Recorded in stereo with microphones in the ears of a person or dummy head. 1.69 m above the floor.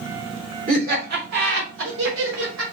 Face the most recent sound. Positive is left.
turn(degrees=-80)